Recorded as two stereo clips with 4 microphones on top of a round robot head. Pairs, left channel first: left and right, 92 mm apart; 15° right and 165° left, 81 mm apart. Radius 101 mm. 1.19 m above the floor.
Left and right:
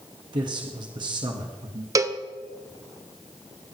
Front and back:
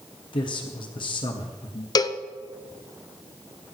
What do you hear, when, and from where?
0.3 s a man speaking: 45° right, 1.4 m
1.9 s a cowbell: 40° right, 0.8 m